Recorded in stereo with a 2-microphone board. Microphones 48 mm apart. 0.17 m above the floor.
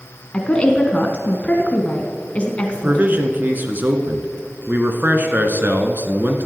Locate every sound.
0.3 s a woman speaking: 25° left (ahead or behind), 1.4 m
2.7 s a man speaking: 40° right (ahead or behind), 1.7 m